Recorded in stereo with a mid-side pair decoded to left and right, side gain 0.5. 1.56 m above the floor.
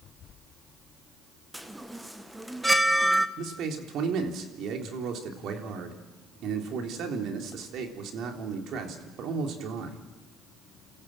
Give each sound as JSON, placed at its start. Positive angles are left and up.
{"t": 1.5, "sound": "a chime", "azimuth_deg": -5, "distance_m": 1.5}
{"t": 3.4, "sound": "a man speaking", "azimuth_deg": -65, "distance_m": 3.5}